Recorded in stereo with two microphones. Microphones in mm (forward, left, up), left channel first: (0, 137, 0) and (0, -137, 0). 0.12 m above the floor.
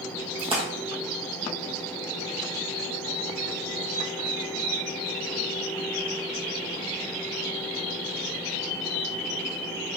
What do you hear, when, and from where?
0.4 s a splash: 20° right (ahead or behind), 1.5 m